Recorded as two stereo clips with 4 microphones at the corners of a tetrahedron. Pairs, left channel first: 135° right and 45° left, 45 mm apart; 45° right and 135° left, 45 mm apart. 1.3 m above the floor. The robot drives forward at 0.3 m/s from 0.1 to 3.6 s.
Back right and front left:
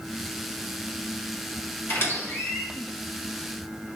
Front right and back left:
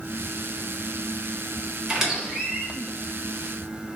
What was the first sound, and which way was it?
A squeak, 145° right.